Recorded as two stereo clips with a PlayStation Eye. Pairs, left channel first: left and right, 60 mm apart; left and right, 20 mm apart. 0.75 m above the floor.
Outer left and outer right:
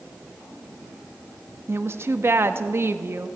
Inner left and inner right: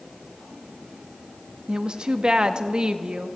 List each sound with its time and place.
1.7 s a woman speaking: 45° right (ahead or behind), 0.7 m